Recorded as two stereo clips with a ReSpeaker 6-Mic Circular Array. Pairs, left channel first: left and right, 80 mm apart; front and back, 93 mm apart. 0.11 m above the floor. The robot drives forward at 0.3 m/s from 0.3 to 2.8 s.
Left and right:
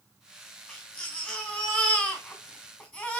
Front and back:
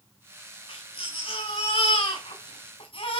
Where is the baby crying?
15° left, 4 m; by 3.2 s 20° left, 3.5 m.